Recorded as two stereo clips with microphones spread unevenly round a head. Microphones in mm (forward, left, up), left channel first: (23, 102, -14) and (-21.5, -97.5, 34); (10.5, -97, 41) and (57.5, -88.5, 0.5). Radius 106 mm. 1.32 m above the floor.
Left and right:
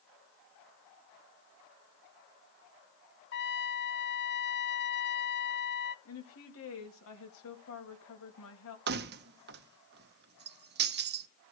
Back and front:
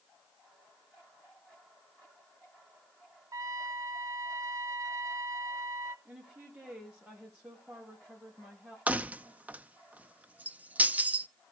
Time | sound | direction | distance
3.3 | a trumpet | 35° left | 0.5 m
6.0 | a woman speaking | 75° left | 2.5 m
8.9 | keys jangling | 70° right | 0.7 m